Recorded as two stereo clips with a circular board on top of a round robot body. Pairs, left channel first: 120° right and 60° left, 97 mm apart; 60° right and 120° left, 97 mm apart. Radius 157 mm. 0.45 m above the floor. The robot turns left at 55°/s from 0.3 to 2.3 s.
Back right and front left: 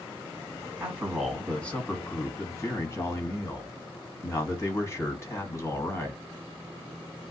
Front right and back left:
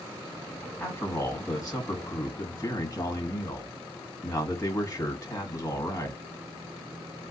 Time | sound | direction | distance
0.8 | a man speaking | 5° right | 1.4 m